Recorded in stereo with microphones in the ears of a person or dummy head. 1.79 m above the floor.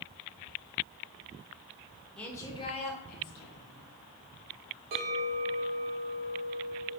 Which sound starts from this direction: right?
A clink, at 4.9 s.